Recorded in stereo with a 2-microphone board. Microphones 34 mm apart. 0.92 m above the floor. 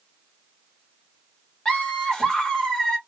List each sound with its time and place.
1.6 s laughter: 20° left (ahead or behind), 1.3 m